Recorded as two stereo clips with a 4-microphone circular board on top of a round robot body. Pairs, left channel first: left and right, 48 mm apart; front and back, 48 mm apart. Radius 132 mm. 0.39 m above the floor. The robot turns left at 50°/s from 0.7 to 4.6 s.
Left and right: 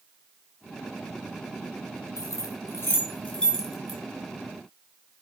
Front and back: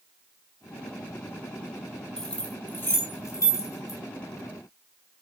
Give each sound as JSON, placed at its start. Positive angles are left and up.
{"t": 2.2, "sound": "keys jangling", "azimuth_deg": 80, "distance_m": 4.5}